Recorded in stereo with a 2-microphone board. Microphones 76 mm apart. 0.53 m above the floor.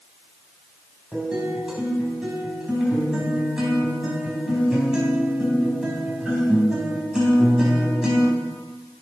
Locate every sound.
1.1 s a guitar: 10° right (ahead or behind), 4 m